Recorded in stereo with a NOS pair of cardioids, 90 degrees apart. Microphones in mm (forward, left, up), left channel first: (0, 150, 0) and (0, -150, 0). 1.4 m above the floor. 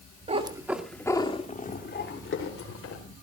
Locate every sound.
0.3 s a cat meowing: 25° right, 2 m; by 3.0 s 55° left, 3.5 m